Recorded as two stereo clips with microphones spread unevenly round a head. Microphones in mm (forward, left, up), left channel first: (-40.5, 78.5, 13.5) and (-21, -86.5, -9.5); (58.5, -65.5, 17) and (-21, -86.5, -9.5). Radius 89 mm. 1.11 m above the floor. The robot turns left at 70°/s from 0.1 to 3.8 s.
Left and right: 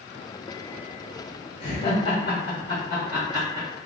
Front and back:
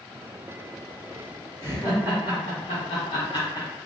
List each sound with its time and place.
1.6 s laughter: 105° left, 1.3 m; by 3.7 s 40° right, 1.3 m